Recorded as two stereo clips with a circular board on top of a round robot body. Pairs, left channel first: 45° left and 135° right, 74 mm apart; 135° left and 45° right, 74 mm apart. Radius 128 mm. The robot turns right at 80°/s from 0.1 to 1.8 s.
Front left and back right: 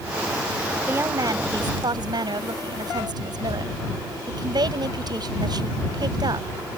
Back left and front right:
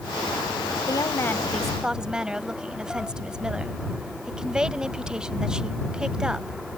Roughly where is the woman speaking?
Behind.